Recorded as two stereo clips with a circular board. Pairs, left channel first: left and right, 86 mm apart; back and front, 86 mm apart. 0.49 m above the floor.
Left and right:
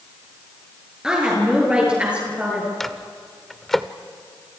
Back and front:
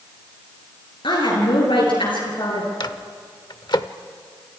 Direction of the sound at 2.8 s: 175° left.